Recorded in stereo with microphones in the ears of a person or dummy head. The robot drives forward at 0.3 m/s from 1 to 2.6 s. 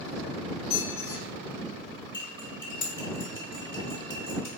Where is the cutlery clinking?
30° left (ahead or behind), 0.9 m; by 4.5 s 25° left (ahead or behind), 1.0 m.